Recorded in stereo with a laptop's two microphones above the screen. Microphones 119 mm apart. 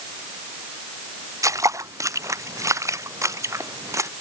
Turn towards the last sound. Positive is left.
turn(degrees=-25)  # may be behind; listen again after turning